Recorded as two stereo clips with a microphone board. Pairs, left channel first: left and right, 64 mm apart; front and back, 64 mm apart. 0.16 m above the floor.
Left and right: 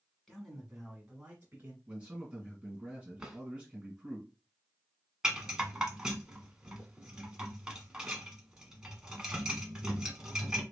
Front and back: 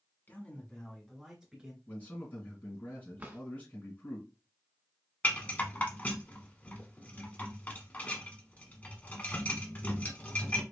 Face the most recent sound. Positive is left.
turn(degrees=-25)